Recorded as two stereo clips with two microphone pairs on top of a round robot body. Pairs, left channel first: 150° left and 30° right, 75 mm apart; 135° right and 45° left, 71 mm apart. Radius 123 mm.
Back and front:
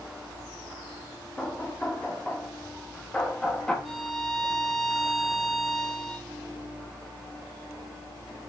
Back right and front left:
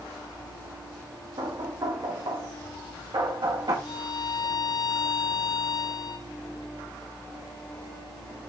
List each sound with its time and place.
1.4 s knocking: 70° left, 1.7 m
3.9 s a violin: 120° right, 2 m